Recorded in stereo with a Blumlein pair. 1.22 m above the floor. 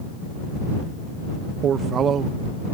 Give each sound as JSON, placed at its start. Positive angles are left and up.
{"t": 1.6, "sound": "a man speaking", "azimuth_deg": -25}